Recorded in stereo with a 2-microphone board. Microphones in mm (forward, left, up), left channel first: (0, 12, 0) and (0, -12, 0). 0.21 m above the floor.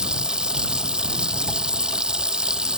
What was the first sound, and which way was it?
Running water, 35° right (ahead or behind).